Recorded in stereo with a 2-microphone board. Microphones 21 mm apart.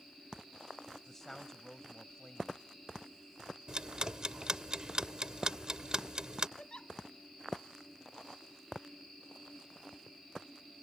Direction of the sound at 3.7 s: 35° right (ahead or behind).